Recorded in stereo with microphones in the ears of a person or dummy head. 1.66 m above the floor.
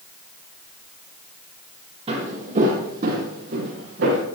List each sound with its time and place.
2.1 s footsteps: 40° right (ahead or behind), 3.5 m; by 4.2 s 65° right (ahead or behind), 4 m